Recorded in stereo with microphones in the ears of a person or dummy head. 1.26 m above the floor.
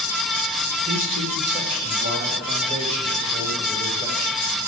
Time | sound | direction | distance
0.9 | a man speaking | 45° right (ahead or behind) | 1.3 m